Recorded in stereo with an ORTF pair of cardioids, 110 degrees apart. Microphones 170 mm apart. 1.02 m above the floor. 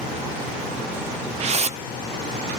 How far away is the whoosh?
About 0.8 m.